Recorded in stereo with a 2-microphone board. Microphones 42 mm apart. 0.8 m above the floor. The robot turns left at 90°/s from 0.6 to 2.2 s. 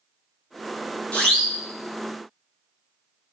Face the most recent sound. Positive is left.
turn(degrees=-65)